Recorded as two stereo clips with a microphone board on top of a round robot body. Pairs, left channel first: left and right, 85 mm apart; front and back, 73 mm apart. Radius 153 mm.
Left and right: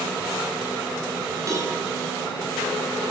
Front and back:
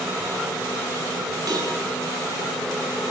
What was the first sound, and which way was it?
A cowbell, 140° right.